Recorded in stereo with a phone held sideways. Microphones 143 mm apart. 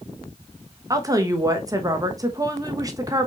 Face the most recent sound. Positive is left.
turn(degrees=-25)  # may be behind; listen again after turning